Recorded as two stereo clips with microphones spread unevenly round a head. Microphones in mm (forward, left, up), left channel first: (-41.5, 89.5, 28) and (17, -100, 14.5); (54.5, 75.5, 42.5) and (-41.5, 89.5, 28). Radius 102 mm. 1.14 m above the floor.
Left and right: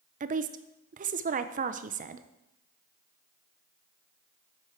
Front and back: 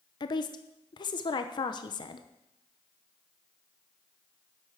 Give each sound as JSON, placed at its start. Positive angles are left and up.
{"t": 0.2, "sound": "a woman speaking", "azimuth_deg": -45, "distance_m": 0.7}